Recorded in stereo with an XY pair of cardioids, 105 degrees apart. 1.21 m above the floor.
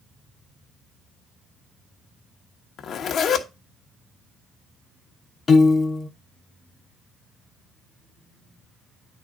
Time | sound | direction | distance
2.8 | a zipper | 60° left | 1.2 m
5.5 | a piano | 35° left | 1.0 m